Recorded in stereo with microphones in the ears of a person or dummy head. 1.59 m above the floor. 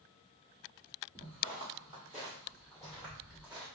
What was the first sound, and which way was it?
Footsteps, centre (ahead or behind).